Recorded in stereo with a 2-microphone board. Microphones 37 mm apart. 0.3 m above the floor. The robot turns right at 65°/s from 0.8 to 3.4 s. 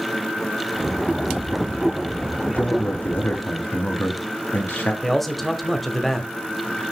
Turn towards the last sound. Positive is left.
turn(degrees=5)  # may be behind; listen again after turning